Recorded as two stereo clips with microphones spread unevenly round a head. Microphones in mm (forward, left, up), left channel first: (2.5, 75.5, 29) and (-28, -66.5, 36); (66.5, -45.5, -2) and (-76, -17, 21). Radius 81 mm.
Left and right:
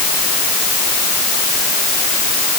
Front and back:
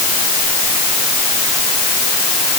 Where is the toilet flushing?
No toilet flushing in this recording.